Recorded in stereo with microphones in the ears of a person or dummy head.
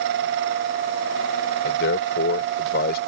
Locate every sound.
1.6 s a man speaking: 65° left (ahead or behind); by 3.0 s 50° left (ahead or behind)